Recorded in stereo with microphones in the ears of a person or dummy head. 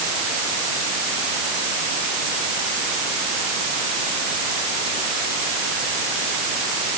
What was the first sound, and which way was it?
Only background noise.